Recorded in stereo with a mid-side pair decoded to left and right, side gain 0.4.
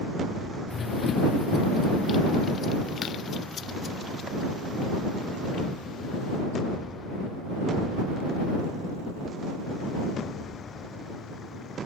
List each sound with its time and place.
0.7 s running footsteps: 50° left; by 6.4 s 65° left